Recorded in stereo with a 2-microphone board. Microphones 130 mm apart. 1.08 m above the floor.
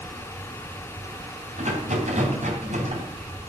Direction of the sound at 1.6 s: 65° right (ahead or behind).